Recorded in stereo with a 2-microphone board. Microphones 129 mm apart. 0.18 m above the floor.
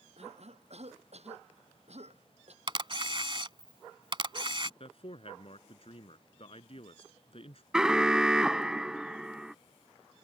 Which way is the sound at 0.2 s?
55° right (ahead or behind).